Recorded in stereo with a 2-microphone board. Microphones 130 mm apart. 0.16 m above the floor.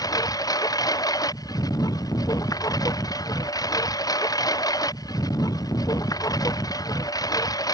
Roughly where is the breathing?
I don't hear breathing.